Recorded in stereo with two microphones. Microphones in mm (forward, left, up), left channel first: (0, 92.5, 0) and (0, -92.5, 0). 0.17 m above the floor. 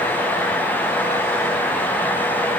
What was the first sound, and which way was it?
Only background noise.